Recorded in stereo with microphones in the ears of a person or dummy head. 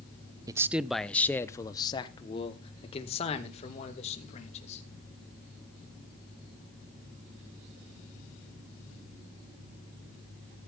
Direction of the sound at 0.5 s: 25° right (ahead or behind).